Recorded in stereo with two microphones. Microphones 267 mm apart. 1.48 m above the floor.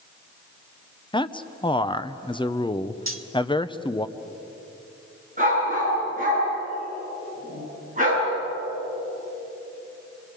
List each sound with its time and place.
1.1 s a man speaking: 20° left (ahead or behind), 0.8 m
3.1 s cutlery clinking: 50° right (ahead or behind), 1.4 m
5.4 s a dog barking: 30° right (ahead or behind), 10 m